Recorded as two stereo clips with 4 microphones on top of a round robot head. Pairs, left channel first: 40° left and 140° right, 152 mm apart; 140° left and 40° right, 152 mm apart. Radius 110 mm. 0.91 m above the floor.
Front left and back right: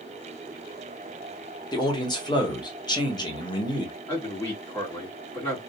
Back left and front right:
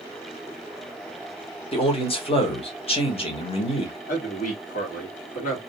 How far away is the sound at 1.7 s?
About 1.3 m.